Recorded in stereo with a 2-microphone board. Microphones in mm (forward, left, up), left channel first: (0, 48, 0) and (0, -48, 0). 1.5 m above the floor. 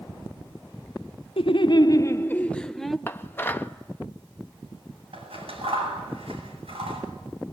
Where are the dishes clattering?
20° left (ahead or behind), 1.0 m.